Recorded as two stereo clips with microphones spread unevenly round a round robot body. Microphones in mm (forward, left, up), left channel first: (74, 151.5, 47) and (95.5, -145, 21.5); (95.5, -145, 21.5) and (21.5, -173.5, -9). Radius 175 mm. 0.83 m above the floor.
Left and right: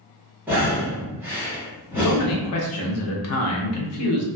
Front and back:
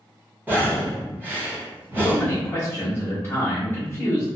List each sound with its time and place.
0.5 s breathing: 160° right, 0.8 m
2.0 s a man speaking: 110° left, 0.6 m